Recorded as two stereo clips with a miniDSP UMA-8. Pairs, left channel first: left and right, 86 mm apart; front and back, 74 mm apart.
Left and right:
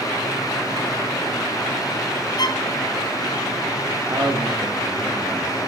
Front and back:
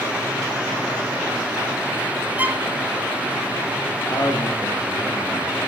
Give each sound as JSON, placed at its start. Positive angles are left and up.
{"t": 2.4, "sound": "a violin", "azimuth_deg": 115, "distance_m": 1.5}
{"t": 4.1, "sound": "a man speaking", "azimuth_deg": -40, "distance_m": 6.5}